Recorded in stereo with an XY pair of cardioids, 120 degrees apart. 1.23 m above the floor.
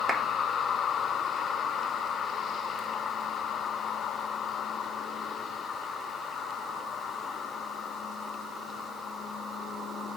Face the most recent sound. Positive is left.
turn(degrees=-25)